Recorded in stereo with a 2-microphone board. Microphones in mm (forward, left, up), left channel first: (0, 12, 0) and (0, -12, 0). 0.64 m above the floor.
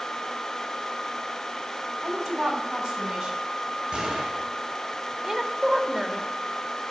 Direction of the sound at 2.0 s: 20° right (ahead or behind).